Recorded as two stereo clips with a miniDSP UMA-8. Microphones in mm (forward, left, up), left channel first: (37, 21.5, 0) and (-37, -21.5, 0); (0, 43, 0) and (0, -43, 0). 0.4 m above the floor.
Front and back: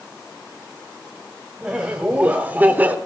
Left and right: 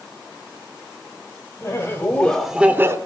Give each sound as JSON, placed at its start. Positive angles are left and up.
{"t": 1.6, "sound": "laughter", "azimuth_deg": 135, "distance_m": 1.3}